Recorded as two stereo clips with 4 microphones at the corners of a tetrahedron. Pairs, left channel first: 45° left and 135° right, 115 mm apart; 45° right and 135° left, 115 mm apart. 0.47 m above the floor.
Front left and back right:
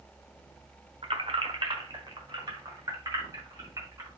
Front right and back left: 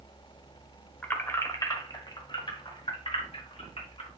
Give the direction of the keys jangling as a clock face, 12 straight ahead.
4 o'clock.